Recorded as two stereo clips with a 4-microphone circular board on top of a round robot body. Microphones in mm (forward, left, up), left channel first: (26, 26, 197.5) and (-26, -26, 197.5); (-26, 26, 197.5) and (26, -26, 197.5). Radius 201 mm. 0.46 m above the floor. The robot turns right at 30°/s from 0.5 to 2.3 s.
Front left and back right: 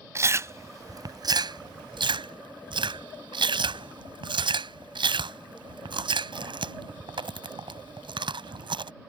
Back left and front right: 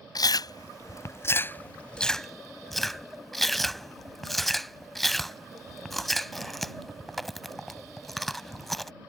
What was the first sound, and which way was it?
Chewing, 170° left.